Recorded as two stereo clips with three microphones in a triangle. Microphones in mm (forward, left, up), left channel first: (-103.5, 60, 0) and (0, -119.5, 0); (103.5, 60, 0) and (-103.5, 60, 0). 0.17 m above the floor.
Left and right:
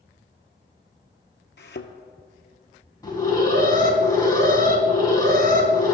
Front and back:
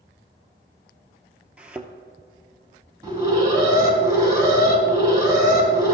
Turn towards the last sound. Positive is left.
turn(degrees=150)